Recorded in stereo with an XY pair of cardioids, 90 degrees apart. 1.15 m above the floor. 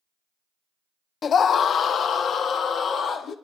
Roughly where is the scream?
Ahead left.